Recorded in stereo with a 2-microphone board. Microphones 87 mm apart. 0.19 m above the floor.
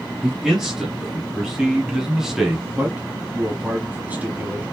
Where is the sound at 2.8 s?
20° right (ahead or behind), 1.3 m.